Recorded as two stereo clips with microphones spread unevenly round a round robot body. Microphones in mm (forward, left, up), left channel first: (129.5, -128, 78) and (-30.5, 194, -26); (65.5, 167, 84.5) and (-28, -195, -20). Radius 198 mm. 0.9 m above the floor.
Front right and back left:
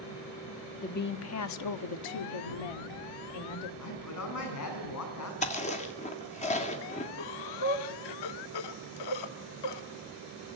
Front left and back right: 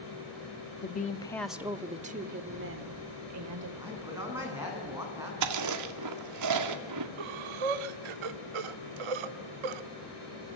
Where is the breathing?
95° right, 1.2 m.